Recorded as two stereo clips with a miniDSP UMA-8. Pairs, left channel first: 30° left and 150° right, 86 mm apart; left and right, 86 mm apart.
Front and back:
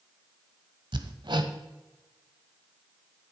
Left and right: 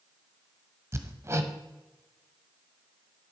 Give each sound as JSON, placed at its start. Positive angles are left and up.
{"t": 0.9, "sound": "hammering", "azimuth_deg": -145, "distance_m": 0.9}